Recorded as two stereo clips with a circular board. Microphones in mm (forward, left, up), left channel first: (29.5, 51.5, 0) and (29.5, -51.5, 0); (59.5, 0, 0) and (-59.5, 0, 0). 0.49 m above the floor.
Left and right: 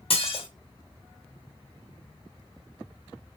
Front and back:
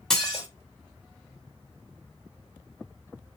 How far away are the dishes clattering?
About 1.1 m.